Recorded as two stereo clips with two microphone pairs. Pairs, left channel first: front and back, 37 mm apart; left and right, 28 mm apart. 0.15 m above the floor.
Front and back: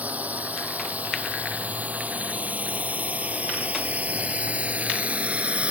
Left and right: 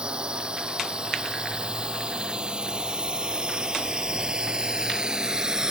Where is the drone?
140° right.